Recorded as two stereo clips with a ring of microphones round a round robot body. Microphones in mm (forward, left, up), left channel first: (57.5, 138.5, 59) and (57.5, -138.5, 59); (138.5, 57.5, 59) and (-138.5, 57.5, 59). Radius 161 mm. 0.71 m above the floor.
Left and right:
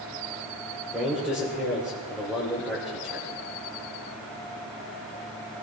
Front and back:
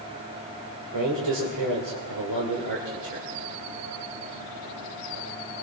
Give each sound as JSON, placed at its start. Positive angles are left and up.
{"t": 0.9, "sound": "a man speaking", "azimuth_deg": -175, "distance_m": 3.0}